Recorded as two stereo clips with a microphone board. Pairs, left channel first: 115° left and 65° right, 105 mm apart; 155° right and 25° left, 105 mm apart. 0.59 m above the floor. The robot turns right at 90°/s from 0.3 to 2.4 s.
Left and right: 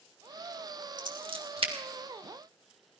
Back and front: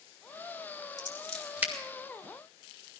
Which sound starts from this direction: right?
Scissors, at 1.0 s.